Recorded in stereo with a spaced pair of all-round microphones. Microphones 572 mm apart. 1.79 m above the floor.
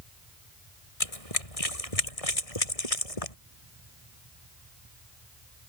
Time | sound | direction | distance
1.0 | running footsteps | 75° left (ahead or behind) | ?